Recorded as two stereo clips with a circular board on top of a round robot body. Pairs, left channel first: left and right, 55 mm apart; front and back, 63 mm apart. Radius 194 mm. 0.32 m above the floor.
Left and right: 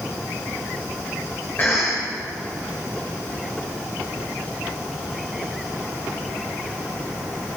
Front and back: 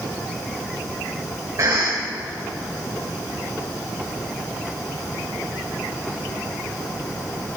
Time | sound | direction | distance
1.6 | a cough | 145° left | 2 m